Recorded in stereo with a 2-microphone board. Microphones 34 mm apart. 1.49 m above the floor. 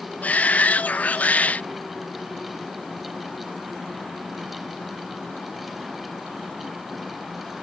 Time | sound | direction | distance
0.2 | a shout | 50° left (ahead or behind) | ?